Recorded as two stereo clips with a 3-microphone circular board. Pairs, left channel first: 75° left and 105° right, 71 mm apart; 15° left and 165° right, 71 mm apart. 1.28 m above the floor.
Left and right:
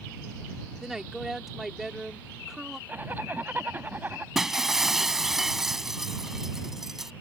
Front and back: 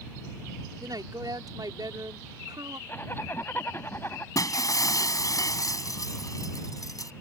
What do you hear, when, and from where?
0.8 s a woman speaking: 170° left
2.9 s a zipper: 40° right
4.3 s breaking glass: 20° right